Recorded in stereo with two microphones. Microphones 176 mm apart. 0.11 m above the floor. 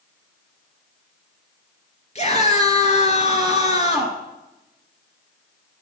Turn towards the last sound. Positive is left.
turn(degrees=40)  # may be behind; listen again after turning